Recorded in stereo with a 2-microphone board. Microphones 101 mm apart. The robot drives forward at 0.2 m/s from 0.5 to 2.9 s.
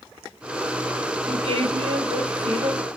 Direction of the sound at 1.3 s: 80° right.